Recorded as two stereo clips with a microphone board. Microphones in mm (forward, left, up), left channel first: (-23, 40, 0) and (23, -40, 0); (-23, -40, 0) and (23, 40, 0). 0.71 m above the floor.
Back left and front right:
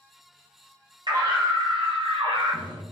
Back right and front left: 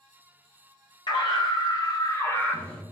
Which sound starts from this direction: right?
A scream, at 1.1 s.